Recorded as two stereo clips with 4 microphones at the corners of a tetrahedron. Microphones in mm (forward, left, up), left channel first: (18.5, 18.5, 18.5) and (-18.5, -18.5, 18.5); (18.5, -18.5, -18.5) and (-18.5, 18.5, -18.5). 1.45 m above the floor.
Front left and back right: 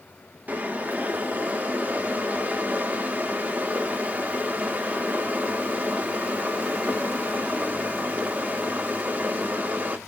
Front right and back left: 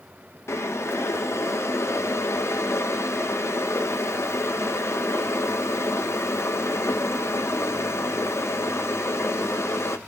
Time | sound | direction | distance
0.5 | boiling | 80° right | 0.8 m